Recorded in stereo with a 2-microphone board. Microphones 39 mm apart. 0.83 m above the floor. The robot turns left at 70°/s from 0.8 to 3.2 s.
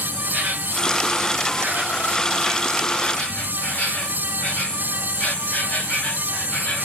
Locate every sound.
0.0 s an insect: 60° right, 1.7 m; by 6.9 s 130° left, 1.7 m